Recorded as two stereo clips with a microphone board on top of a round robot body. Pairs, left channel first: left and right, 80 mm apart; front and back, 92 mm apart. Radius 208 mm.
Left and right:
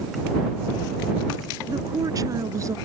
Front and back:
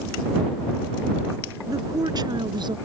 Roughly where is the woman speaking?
Behind right.